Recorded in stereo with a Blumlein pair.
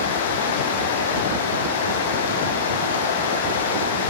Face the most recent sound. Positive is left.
turn(degrees=60)